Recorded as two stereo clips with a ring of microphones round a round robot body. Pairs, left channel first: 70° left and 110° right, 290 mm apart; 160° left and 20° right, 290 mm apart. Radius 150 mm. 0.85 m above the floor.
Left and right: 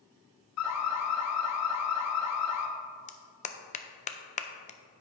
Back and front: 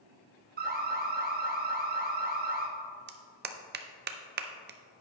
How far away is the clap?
About 0.7 m.